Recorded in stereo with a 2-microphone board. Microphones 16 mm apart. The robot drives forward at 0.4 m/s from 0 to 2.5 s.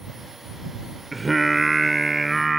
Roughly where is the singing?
Centre.